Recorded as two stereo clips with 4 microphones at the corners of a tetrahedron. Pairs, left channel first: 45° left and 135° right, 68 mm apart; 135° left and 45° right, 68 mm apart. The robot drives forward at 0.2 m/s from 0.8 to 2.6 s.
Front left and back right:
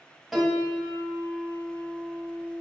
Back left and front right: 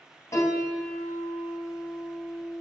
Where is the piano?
140° left, 1.0 m; by 2.6 s 150° left, 1.3 m.